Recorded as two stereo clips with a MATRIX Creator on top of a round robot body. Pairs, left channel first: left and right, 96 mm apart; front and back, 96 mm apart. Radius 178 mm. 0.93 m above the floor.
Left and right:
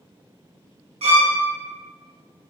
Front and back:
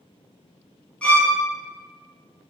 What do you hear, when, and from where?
1.0 s a violin: 80° right, 0.7 m